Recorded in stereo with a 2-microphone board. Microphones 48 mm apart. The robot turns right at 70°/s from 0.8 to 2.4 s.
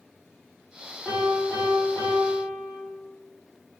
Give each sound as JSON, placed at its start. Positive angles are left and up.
{"t": 1.1, "sound": "a piano", "azimuth_deg": 5, "distance_m": 3.0}